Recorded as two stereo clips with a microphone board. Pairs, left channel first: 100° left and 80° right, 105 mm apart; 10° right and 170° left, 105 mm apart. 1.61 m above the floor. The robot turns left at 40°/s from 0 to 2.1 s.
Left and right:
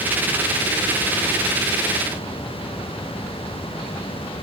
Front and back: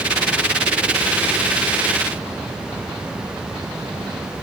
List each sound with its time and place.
Only background noise.